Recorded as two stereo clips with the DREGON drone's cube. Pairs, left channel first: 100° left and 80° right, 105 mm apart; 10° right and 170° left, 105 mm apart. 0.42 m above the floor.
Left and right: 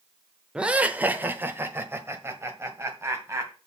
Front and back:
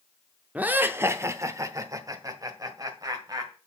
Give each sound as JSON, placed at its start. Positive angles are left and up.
{"t": 0.6, "sound": "laughter", "azimuth_deg": -140, "distance_m": 0.7}